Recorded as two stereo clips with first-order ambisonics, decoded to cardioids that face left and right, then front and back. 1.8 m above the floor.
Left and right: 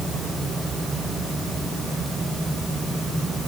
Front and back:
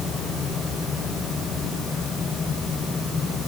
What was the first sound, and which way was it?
Only background noise.